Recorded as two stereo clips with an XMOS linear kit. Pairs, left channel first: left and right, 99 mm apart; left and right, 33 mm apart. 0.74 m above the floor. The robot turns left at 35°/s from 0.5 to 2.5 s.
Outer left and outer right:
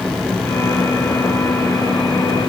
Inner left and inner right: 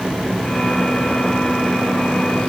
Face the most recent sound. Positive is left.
No sound to turn to.